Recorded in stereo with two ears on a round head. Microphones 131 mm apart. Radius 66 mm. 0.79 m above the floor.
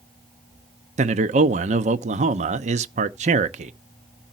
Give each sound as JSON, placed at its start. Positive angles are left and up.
{"t": 1.0, "sound": "a man speaking", "side_deg": -50, "distance_m": 0.8}